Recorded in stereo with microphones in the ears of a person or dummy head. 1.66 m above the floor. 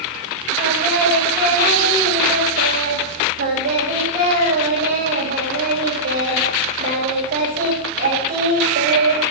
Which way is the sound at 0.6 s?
45° right (ahead or behind).